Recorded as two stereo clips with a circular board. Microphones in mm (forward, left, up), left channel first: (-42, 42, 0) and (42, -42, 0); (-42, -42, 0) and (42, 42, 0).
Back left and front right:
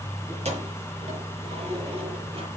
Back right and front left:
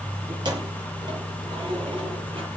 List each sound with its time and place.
0.3 s keys jangling: 10° right, 6.5 m; by 2.5 s 5° right, 7.5 m